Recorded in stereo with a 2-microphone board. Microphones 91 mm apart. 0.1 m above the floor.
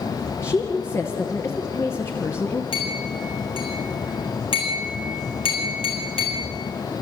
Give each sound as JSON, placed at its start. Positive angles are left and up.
{"t": 0.4, "sound": "a woman speaking", "side_deg": 30, "distance_m": 1.6}
{"t": 2.7, "sound": "a clink", "side_deg": 80, "distance_m": 5.0}